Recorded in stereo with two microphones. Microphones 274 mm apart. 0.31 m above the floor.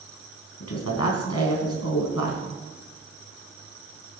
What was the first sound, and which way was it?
A woman speaking, 65° left (ahead or behind).